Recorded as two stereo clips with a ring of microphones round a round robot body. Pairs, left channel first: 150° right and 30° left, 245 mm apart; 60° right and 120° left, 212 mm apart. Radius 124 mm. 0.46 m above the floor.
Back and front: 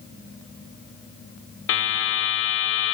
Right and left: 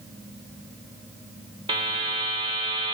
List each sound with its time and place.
1.7 s a buzzer: 175° right, 0.7 m